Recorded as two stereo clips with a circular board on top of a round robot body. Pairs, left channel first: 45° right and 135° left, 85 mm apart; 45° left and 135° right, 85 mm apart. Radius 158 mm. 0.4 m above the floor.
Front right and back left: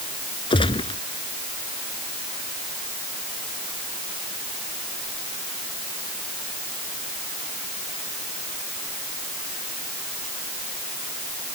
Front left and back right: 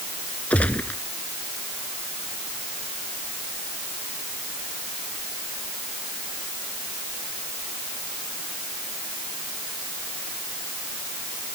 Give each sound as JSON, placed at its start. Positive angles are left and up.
{"t": 0.5, "sound": "a gunshot", "azimuth_deg": -30}